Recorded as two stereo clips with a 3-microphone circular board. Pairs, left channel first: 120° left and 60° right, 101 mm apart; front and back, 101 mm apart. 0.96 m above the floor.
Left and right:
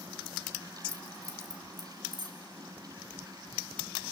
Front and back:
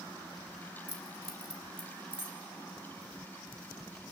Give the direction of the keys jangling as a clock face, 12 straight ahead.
12 o'clock.